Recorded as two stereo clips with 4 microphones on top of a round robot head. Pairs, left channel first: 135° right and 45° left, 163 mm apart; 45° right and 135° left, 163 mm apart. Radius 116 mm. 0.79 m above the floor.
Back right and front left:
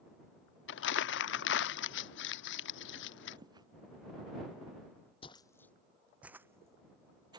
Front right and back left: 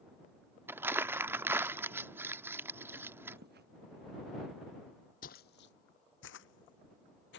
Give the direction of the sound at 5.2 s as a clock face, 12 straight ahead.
3 o'clock.